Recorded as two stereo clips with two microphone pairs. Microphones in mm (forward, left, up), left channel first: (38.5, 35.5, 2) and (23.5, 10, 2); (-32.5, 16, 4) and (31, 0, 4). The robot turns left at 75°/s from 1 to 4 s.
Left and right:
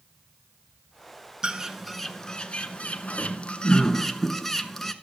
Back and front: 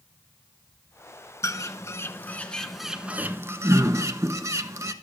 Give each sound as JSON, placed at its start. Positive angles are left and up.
{"t": 1.4, "sound": "a bird", "azimuth_deg": 175, "distance_m": 0.7}